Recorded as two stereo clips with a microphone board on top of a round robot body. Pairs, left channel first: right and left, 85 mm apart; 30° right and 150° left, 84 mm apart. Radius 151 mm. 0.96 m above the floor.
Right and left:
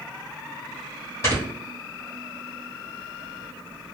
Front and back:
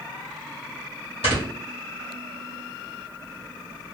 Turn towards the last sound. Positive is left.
turn(degrees=-30)